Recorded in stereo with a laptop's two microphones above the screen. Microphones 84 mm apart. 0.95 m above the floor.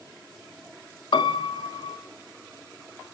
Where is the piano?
75° left (ahead or behind), 1.5 m.